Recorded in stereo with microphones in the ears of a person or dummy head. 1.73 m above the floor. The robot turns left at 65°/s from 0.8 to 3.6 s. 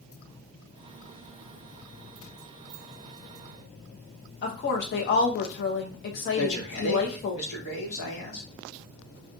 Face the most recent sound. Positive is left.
turn(degrees=75)  # may be behind; listen again after turning